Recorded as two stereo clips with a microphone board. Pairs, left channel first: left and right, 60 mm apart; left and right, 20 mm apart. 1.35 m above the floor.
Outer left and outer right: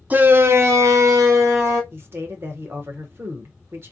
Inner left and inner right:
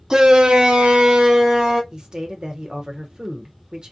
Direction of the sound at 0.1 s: 25° right (ahead or behind).